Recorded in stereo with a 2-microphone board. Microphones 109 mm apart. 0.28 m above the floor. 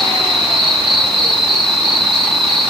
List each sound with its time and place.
0.0 s an insect: 5° left (ahead or behind), 3 m